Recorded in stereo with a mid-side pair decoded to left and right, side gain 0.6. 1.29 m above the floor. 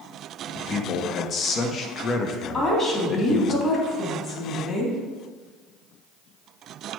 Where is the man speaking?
40° left, 1.0 m.